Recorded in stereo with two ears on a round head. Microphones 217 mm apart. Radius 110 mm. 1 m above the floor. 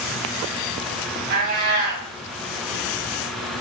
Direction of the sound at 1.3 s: 40° right (ahead or behind).